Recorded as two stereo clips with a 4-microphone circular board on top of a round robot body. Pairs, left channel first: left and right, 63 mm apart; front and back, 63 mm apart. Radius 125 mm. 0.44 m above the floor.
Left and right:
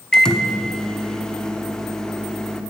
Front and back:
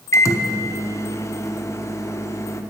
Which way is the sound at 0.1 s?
15° left.